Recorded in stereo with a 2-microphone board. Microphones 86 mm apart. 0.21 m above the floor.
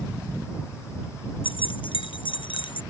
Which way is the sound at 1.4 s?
75° left (ahead or behind).